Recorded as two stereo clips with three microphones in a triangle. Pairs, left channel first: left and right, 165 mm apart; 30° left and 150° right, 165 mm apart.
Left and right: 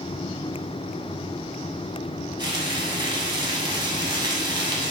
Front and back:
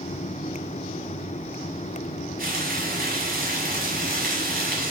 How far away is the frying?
About 0.9 m.